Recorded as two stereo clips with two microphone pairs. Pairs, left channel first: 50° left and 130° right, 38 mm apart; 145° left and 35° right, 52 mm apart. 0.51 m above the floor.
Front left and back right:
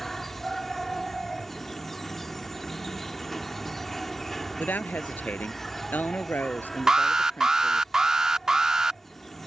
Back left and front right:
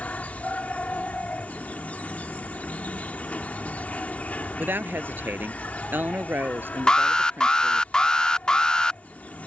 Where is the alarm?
170° right.